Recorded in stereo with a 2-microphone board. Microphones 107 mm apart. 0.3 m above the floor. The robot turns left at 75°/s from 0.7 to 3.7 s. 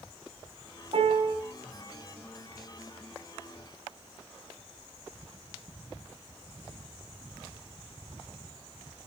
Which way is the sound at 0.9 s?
70° right.